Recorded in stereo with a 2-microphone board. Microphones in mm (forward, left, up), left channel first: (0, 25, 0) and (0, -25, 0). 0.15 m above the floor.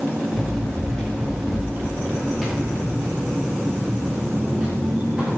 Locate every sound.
0.3 s running footsteps: 10° left (ahead or behind), 8 m; by 5.4 s 20° right (ahead or behind), 8 m